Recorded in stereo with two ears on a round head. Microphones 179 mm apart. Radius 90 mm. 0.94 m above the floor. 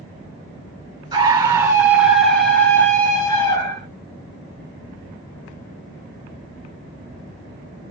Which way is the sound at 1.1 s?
20° right (ahead or behind).